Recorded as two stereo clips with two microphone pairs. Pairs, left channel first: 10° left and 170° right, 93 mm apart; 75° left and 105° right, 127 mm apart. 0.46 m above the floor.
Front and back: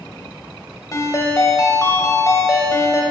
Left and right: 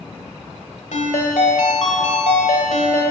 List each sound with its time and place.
0.9 s a ringtone: 60° left, 1.1 m